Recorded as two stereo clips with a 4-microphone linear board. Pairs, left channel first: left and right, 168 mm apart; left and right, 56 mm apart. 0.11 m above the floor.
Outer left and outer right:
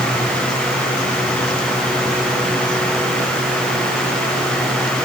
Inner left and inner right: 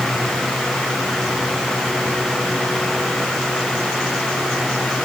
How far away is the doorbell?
No doorbell in this recording.